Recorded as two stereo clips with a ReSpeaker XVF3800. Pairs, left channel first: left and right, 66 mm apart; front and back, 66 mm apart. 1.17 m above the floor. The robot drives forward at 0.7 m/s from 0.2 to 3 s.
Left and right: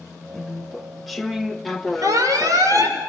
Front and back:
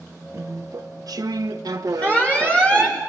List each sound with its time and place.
0.3 s chewing: 175° left, 0.6 m; by 3.0 s straight behind, 2.5 m
2.0 s an alarm: 65° right, 6 m; by 3.0 s 75° right, 5.5 m